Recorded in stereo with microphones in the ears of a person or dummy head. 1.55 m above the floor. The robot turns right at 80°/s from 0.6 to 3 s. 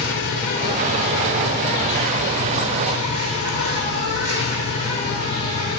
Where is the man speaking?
No man speaking in this recording.